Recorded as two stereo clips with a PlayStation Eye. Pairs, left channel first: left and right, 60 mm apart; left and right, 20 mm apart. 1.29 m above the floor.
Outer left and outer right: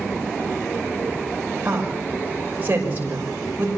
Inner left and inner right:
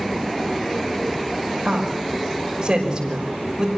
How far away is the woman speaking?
About 6 m.